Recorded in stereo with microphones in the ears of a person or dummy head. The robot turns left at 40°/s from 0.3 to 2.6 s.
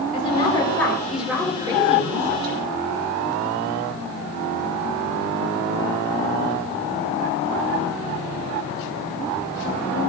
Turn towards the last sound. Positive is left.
turn(degrees=-55)